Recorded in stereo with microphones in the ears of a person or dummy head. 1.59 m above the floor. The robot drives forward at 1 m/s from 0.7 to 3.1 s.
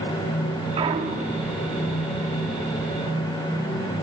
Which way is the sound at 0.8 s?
30° right (ahead or behind).